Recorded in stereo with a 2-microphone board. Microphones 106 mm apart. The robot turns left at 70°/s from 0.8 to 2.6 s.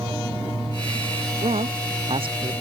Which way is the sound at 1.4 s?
65° right (ahead or behind).